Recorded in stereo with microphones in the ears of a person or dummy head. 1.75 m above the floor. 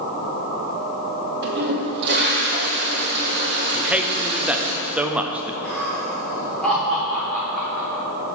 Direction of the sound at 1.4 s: 55° right (ahead or behind).